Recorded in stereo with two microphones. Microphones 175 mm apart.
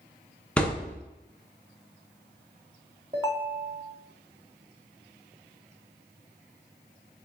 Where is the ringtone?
25° right (ahead or behind), 0.7 m.